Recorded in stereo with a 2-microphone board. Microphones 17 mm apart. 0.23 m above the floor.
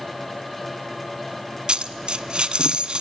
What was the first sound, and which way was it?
A dropped coin, 60° right (ahead or behind).